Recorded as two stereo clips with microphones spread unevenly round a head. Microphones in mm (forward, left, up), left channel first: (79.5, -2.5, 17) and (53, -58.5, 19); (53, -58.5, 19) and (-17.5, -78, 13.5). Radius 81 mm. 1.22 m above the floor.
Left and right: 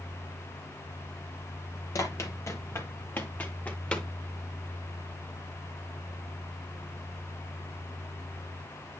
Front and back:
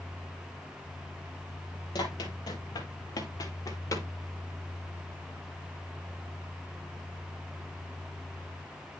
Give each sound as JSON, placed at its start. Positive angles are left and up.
{"t": 1.9, "sound": "running footsteps", "azimuth_deg": 40, "distance_m": 2.0}